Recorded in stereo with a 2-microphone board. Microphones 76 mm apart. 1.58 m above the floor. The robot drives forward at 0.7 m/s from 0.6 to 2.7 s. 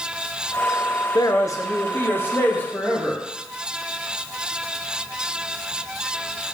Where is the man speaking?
60° left (ahead or behind), 0.6 m; by 3.2 s 20° left (ahead or behind), 1.5 m.